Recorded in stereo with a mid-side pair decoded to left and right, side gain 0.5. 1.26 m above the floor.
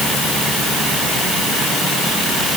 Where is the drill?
I don't hear a drill.